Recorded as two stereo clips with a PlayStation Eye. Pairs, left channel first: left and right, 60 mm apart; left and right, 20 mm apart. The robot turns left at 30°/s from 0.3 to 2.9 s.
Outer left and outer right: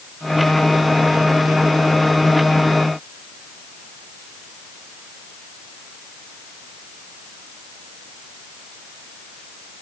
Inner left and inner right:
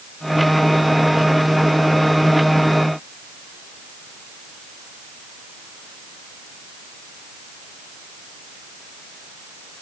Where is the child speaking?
No child speaking in this recording.